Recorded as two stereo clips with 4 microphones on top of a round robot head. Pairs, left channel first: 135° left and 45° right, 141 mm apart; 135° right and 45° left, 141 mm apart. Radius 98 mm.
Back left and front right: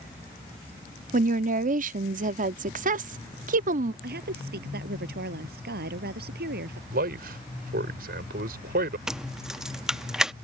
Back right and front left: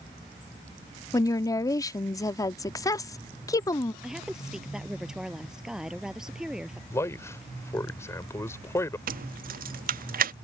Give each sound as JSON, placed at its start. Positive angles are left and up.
{"t": 1.1, "sound": "a woman speaking", "azimuth_deg": -70}
{"t": 4.0, "sound": "a woman speaking", "azimuth_deg": -40}
{"t": 6.9, "sound": "a man speaking", "azimuth_deg": -65}
{"t": 9.1, "sound": "keys jangling", "azimuth_deg": 40}